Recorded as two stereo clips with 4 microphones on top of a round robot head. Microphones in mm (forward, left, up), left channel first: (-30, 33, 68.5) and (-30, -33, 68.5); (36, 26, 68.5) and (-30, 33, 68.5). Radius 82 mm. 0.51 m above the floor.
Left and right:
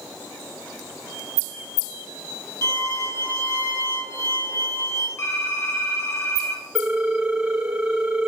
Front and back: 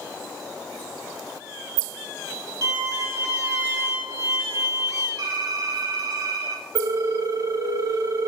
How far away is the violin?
About 4.5 m.